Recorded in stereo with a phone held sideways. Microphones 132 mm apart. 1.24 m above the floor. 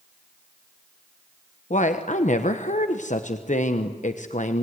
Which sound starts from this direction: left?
A woman speaking, at 1.7 s.